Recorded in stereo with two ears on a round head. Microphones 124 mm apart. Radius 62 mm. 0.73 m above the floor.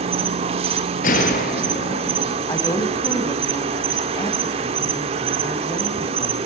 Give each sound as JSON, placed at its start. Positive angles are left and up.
{"t": 0.0, "sound": "an insect", "side_deg": -45, "distance_m": 2.0}
{"t": 1.0, "sound": "a gunshot", "side_deg": 65, "distance_m": 4.0}
{"t": 2.5, "sound": "a woman speaking", "side_deg": 20, "distance_m": 4.5}